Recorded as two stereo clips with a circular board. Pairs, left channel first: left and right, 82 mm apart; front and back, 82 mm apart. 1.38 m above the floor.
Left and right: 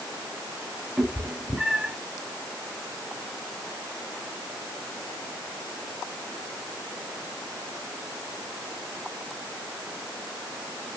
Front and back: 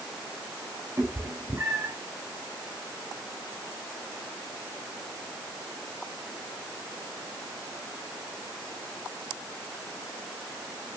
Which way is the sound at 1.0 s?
165° right.